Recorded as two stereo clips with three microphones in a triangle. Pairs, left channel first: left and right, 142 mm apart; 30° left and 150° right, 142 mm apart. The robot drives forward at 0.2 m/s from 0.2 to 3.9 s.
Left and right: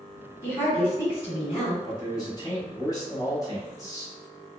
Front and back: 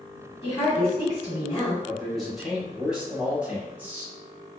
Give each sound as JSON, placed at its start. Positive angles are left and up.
{"t": 0.4, "sound": "a woman speaking", "azimuth_deg": 35, "distance_m": 1.7}
{"t": 1.9, "sound": "a man speaking", "azimuth_deg": 110, "distance_m": 1.1}